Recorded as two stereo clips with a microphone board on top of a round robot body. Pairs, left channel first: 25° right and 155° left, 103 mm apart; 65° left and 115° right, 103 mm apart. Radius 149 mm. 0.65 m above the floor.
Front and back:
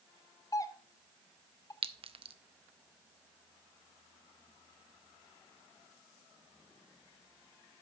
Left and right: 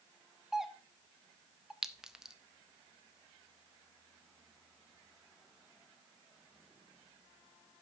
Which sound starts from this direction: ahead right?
A doorbell, at 0.5 s.